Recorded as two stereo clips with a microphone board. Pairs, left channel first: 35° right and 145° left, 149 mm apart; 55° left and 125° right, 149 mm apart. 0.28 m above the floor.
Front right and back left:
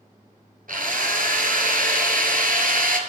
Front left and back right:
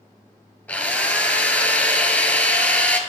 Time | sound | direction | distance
0.7 | a drill | 135° left | 1.5 m